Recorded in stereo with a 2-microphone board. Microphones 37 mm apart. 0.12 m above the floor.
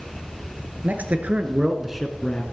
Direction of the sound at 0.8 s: 45° right (ahead or behind).